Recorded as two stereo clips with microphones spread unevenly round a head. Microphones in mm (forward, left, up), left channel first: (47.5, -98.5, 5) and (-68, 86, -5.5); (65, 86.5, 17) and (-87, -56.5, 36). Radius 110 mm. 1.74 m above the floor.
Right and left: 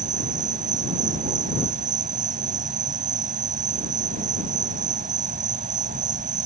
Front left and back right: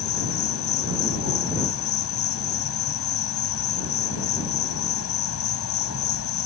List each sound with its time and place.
0.0 s an insect: 65° left